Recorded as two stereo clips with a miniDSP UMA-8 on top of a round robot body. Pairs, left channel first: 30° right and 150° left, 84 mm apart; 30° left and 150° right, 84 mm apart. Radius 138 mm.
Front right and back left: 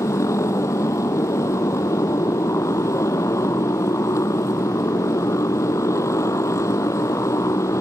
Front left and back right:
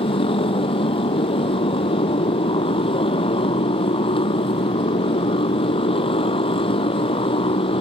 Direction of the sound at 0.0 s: 25° left.